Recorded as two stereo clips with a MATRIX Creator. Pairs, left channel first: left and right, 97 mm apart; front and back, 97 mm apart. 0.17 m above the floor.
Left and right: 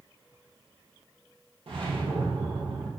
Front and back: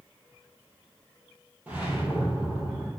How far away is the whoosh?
About 3 m.